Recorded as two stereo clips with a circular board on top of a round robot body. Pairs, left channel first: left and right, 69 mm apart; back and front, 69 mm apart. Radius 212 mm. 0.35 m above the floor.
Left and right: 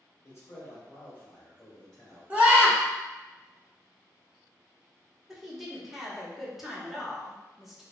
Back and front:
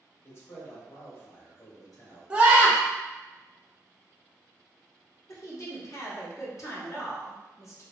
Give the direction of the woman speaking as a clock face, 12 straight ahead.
6 o'clock.